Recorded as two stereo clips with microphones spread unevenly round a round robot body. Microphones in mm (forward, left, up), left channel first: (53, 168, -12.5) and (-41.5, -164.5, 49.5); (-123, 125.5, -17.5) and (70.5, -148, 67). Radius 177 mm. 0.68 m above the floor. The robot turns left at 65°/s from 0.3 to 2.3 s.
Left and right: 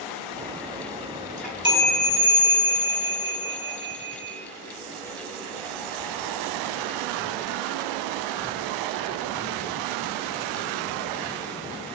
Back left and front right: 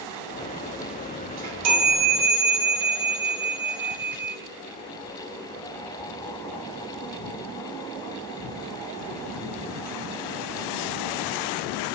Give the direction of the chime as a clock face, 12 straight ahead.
12 o'clock.